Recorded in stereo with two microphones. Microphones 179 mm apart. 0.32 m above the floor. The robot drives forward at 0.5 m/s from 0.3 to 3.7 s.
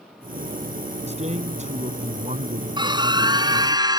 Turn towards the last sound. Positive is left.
turn(degrees=-20)  # may be behind; listen again after turning